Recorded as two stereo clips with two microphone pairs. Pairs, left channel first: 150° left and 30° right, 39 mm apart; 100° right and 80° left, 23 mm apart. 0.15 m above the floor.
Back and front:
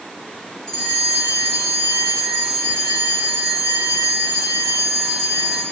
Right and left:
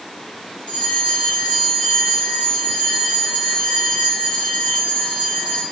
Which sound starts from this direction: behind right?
A bell, at 0.7 s.